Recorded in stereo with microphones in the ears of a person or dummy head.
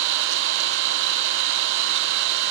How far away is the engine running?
About 0.9 m.